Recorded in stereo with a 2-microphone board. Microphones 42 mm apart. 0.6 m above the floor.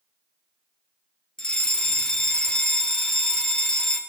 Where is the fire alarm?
20° left (ahead or behind), 2 m.